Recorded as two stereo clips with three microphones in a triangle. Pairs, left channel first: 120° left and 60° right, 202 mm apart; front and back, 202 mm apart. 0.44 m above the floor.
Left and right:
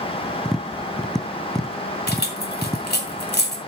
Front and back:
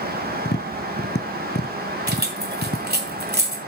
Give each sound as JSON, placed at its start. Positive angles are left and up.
{"t": 0.5, "sound": "tapping", "azimuth_deg": 30, "distance_m": 0.9}
{"t": 2.1, "sound": "keys jangling", "azimuth_deg": 150, "distance_m": 1.9}